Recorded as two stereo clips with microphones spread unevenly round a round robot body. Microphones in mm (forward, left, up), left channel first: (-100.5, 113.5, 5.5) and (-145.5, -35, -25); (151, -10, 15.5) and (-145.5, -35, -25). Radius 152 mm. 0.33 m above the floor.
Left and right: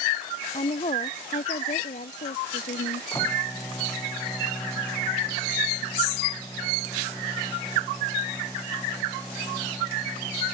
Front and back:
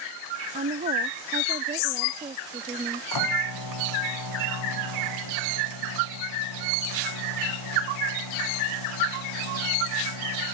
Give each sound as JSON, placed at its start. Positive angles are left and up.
{"t": 0.5, "sound": "a woman speaking", "azimuth_deg": 120}
{"t": 3.1, "sound": "a microwave", "azimuth_deg": -10}